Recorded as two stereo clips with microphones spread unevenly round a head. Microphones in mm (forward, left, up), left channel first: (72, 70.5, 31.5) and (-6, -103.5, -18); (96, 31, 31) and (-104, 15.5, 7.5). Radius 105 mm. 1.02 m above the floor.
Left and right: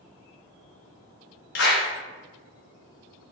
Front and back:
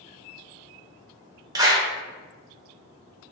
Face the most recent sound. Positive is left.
turn(degrees=115)